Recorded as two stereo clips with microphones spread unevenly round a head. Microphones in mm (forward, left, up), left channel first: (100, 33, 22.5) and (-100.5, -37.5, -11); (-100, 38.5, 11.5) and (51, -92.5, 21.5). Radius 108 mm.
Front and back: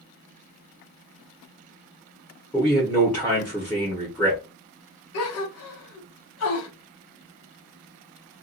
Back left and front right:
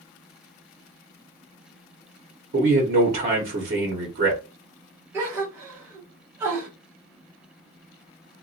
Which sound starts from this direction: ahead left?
A gasp, at 5.1 s.